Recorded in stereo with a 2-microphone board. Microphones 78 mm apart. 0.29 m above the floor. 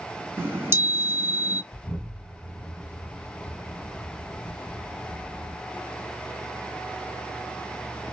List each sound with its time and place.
0.4 s a chime: 30° right (ahead or behind), 1.2 m
1.7 s an explosion: 15° left (ahead or behind), 1.4 m